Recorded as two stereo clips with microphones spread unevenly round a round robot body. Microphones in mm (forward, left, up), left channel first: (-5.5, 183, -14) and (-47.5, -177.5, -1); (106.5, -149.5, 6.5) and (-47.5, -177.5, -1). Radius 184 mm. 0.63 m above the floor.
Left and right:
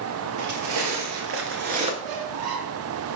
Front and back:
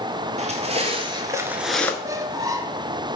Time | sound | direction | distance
0.4 | footsteps | 130° right | 1.1 m
2.0 | a squeak | 100° right | 0.7 m